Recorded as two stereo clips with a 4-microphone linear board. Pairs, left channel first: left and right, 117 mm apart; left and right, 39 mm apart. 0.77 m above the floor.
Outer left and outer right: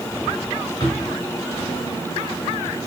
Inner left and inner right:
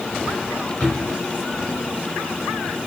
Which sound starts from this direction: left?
A drawer, at 0.8 s.